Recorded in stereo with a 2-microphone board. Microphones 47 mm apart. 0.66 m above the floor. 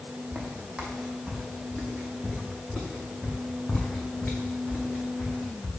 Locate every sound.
0.3 s footsteps: 15° right (ahead or behind), 2 m; by 5.7 s 45° left (ahead or behind), 3 m